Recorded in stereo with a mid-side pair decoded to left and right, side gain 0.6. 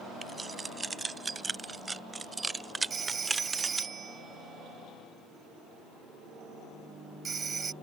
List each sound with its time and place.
0.2 s keys jangling: 20° right; by 3.9 s 15° right
2.9 s a phone ringing: 30° right